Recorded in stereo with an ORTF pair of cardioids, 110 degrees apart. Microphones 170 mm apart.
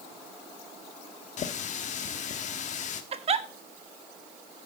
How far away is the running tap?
About 1.2 m.